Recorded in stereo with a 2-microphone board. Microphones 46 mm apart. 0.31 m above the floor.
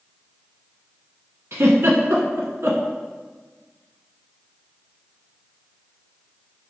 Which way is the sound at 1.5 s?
80° right.